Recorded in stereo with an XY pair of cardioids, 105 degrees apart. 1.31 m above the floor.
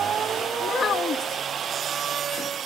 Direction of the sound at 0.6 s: 50° left.